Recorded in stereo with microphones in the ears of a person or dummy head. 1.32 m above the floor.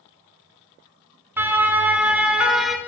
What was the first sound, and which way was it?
A siren, 15° right (ahead or behind).